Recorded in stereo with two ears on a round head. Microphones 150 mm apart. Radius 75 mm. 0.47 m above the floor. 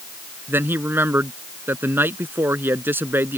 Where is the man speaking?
15° right (ahead or behind).